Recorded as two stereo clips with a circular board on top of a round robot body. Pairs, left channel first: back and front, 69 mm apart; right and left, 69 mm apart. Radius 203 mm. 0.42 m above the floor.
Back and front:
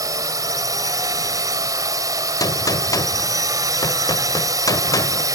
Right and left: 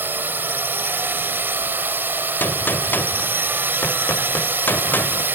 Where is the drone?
30° left.